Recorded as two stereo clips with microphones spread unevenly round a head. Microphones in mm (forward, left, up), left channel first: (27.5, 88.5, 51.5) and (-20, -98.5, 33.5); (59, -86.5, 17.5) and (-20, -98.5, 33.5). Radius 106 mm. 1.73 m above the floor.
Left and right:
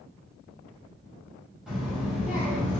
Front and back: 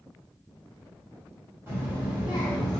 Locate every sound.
1.7 s a child speaking: 165° left, 1.4 m; by 2.8 s 175° right, 1.0 m